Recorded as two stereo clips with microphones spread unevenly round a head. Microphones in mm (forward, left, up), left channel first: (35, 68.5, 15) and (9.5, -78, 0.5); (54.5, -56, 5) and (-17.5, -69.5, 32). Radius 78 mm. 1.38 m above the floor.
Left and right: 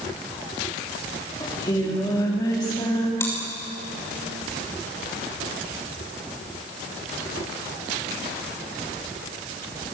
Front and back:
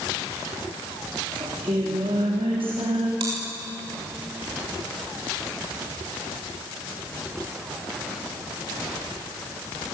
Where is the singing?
150° left, 4 m.